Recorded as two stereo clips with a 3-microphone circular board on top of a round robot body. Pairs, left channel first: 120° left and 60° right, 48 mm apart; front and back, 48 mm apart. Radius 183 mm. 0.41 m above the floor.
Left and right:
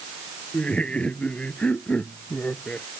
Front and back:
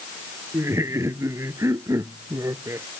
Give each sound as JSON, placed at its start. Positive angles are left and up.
{"t": 0.5, "sound": "laughter", "azimuth_deg": -175}